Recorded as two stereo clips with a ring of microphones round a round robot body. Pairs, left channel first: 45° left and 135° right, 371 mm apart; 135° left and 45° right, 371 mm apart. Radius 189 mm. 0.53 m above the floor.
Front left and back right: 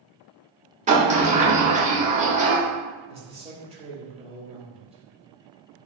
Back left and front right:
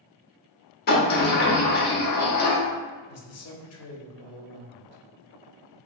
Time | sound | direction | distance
0.9 | a sliding door | 175° left | 0.8 m
3.1 | a man speaking | 160° left | 0.9 m